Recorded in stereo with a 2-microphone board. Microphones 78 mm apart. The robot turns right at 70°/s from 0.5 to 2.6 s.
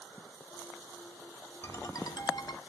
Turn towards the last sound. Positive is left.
turn(degrees=95)